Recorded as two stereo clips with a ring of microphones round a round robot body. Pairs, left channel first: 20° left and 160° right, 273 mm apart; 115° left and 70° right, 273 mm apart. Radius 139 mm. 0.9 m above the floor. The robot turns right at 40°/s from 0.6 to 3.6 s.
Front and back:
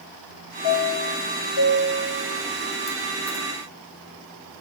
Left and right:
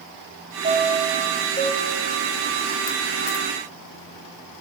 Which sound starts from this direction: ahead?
A chime, at 0.6 s.